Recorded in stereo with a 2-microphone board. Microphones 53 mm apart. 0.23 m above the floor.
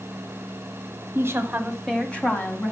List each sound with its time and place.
1.1 s a woman speaking: 45° right (ahead or behind), 1.3 m; by 2.7 s 40° left (ahead or behind), 1.8 m